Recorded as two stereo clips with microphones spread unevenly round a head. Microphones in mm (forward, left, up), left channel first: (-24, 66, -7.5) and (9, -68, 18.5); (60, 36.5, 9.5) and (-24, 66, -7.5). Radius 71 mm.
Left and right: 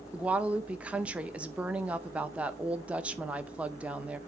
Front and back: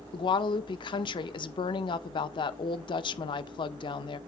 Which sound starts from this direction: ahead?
A woman speaking, at 0.1 s.